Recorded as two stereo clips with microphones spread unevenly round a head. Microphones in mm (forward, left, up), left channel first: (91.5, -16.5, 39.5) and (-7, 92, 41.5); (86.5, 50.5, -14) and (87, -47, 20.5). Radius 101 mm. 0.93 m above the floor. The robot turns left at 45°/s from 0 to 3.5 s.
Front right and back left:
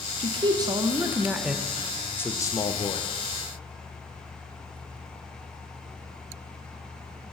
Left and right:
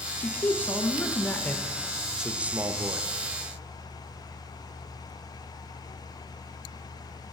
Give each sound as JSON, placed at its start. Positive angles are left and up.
{"t": 0.2, "sound": "a man speaking", "azimuth_deg": 110, "distance_m": 0.8}